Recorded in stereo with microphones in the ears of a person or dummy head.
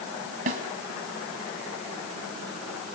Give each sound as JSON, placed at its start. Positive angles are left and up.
{"t": 0.5, "sound": "a snare drum", "side_deg": -35, "distance_m": 1.8}